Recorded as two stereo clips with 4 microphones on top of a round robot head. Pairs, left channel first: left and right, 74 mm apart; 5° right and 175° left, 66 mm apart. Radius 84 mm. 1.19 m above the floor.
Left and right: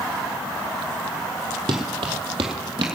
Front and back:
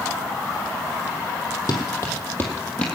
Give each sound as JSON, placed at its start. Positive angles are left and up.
{"t": 1.7, "sound": "running footsteps", "azimuth_deg": -60, "distance_m": 2.0}